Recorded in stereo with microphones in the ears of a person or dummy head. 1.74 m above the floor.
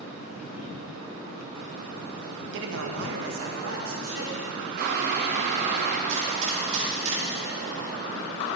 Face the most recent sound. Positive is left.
turn(degrees=-35)  # may be behind; listen again after turning